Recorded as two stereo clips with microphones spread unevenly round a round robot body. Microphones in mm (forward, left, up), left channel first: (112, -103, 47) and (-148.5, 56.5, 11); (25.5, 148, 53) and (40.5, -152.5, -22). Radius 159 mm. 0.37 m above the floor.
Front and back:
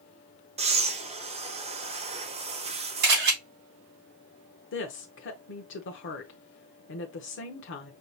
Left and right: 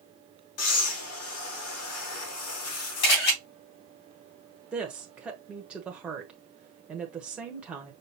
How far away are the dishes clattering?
I don't hear dishes clattering.